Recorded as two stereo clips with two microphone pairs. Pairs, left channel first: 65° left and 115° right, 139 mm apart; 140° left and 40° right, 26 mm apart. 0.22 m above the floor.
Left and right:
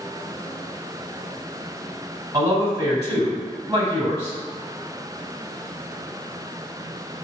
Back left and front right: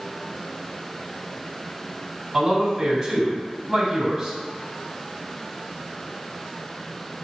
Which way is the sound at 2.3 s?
125° right.